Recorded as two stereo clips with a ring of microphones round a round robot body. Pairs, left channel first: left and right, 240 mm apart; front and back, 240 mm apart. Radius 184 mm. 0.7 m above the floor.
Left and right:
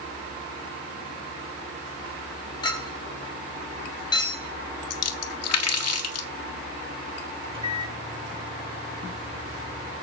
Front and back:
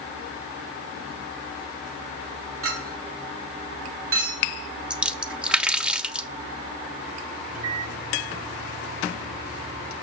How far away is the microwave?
About 8 m.